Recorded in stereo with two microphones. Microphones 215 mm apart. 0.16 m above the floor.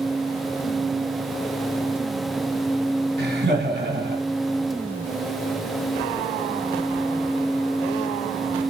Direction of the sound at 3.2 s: 55° right (ahead or behind).